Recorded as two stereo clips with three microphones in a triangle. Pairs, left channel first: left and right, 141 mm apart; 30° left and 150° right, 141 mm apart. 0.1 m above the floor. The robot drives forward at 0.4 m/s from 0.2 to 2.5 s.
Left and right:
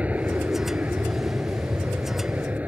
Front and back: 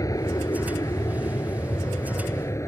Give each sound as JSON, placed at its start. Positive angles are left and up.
{"t": 0.0, "sound": "an aircraft", "azimuth_deg": -20}